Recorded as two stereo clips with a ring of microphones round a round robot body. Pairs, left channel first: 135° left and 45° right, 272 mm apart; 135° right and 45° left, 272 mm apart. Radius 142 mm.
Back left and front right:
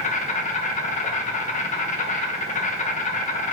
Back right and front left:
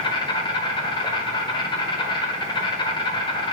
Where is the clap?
I don't hear a clap.